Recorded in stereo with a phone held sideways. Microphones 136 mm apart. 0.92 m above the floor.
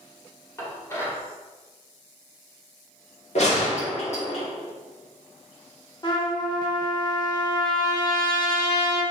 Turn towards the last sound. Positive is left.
turn(degrees=30)  # may be behind; listen again after turning